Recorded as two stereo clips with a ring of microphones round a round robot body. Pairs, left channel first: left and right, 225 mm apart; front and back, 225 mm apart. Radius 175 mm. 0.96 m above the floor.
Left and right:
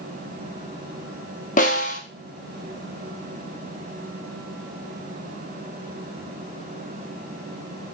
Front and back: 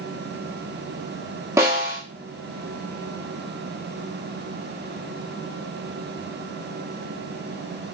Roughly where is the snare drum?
Left.